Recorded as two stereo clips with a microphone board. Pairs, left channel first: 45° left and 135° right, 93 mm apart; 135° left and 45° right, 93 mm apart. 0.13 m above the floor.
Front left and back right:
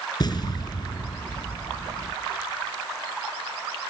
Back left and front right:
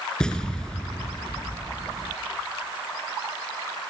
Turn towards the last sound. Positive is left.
turn(degrees=60)